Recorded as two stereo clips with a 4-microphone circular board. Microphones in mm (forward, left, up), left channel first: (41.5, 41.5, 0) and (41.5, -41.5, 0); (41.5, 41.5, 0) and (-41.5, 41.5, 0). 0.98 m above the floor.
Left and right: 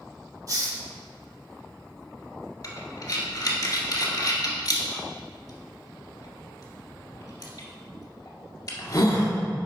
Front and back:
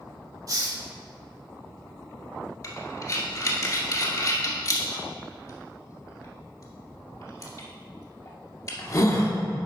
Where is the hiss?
135° right, 1.3 m.